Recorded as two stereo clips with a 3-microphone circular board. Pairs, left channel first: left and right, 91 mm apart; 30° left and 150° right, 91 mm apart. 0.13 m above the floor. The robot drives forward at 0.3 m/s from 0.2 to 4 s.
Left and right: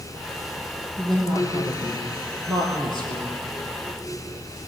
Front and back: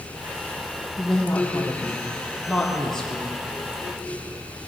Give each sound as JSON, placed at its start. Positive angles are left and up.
{"t": 1.0, "sound": "a woman speaking", "azimuth_deg": -45, "distance_m": 4.5}